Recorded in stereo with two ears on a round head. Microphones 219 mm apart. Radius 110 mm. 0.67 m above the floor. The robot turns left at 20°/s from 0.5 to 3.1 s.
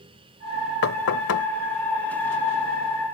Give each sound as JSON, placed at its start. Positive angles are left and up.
{"t": 0.8, "sound": "knocking", "side_deg": 65}